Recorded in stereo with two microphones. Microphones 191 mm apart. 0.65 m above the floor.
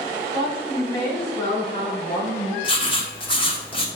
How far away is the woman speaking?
About 3 m.